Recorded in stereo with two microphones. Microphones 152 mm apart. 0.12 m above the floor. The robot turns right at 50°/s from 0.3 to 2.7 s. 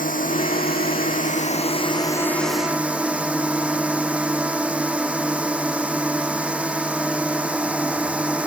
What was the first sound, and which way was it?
A drone, 70° left.